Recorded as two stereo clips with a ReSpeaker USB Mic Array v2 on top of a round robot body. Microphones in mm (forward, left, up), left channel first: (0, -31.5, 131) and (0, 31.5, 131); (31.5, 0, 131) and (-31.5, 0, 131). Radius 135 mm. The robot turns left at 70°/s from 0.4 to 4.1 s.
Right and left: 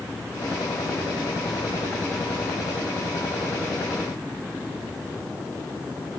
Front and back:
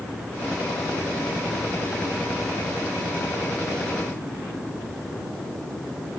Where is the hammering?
No hammering in this recording.